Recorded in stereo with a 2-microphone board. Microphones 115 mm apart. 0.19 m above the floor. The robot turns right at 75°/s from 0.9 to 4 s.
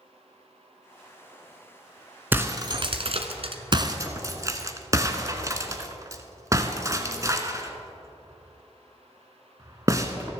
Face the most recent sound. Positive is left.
turn(degrees=-30)  # may be behind; listen again after turning